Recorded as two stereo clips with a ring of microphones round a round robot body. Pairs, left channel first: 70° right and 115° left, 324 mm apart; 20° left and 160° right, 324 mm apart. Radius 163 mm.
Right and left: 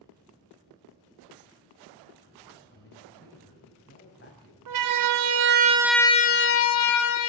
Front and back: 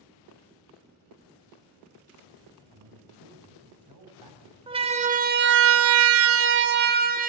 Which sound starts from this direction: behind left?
A siren, at 4.7 s.